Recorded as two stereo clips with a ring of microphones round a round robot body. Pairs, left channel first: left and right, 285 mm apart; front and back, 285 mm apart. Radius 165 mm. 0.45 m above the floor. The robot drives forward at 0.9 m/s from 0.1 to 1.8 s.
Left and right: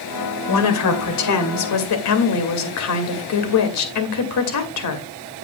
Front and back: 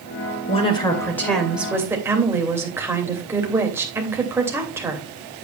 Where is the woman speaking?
70° left, 2.5 m; by 5.1 s 100° left, 2.5 m.